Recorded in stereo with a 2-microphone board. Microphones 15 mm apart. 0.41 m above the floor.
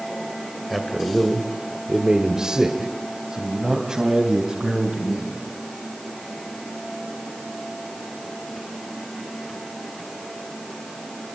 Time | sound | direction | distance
0.7 | a man speaking | centre (ahead or behind) | 2.5 m